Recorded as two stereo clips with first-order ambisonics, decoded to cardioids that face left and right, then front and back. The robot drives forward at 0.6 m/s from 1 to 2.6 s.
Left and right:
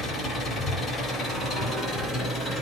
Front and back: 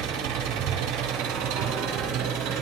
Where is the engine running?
155° left, 4.5 m; by 2.6 s 160° left, 5 m.